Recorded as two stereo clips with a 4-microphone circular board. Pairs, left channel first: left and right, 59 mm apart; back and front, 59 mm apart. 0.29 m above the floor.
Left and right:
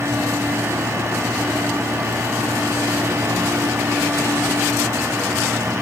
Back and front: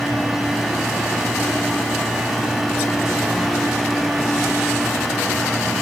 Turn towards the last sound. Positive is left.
No sound to turn to.